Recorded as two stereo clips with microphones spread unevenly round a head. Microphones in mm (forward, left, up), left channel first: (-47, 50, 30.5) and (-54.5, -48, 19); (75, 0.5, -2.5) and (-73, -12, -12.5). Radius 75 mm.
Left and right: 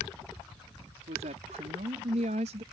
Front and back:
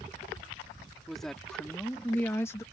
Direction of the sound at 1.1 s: 85° right.